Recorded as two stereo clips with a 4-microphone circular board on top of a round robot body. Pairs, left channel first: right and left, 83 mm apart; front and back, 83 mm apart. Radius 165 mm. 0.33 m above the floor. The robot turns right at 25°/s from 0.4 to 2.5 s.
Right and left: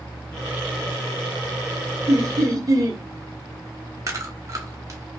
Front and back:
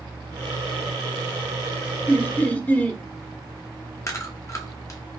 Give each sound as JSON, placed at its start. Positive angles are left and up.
{"t": 2.1, "sound": "laughter", "azimuth_deg": 55, "distance_m": 1.3}
{"t": 4.1, "sound": "chewing", "azimuth_deg": 45, "distance_m": 1.2}